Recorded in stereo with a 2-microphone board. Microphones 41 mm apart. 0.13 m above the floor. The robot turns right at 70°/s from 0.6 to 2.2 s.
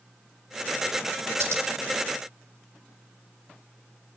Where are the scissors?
75° right (ahead or behind), 2.5 m; by 1.6 s 70° right (ahead or behind), 2.5 m.